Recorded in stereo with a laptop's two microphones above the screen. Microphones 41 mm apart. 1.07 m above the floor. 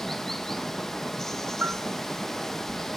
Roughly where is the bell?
Right.